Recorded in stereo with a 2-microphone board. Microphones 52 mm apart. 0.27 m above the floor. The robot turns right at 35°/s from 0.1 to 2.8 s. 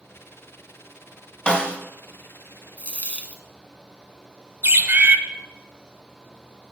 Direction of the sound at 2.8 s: 25° left (ahead or behind).